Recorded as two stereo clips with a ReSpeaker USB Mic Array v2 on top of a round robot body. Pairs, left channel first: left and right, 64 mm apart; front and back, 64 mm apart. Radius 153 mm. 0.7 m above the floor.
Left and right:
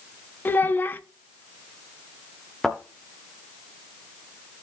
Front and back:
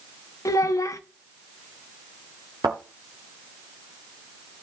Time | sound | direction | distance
0.5 | a child speaking | 30° left | 0.8 m
2.6 | a thud | straight behind | 0.8 m